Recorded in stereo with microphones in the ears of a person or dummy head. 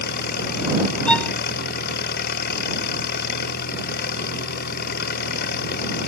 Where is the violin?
10° left (ahead or behind).